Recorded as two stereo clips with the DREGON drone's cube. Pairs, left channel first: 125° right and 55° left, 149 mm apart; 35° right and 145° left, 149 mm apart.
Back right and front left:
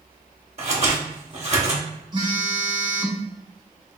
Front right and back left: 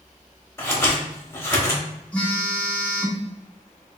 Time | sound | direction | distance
0.6 | scissors | 35° left | 0.8 m
2.1 | a phone buzzing | 35° left | 0.8 m